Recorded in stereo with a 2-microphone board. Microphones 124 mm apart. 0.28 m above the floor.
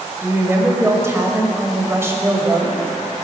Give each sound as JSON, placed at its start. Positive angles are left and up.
{"t": 0.2, "sound": "a woman speaking", "side_deg": -20, "distance_m": 1.0}